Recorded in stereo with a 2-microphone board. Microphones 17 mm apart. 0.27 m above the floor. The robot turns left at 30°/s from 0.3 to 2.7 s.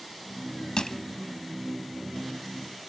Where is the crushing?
60° left (ahead or behind), 0.8 m; by 1.0 s 55° left (ahead or behind), 0.8 m.